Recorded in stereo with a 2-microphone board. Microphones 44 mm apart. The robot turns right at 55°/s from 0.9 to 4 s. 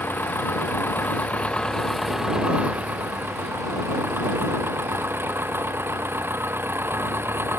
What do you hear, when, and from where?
0.0 s an engine running: 115° left; by 7.6 s 75° right